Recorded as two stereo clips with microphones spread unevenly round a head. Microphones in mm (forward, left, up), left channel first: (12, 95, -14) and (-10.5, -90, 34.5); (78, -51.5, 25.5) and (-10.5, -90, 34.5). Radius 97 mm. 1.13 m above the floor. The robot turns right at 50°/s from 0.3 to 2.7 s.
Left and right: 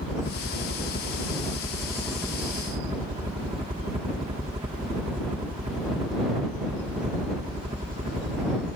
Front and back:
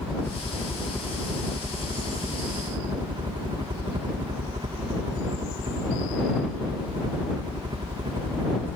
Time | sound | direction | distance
0.0 | a helicopter | 80° left | ?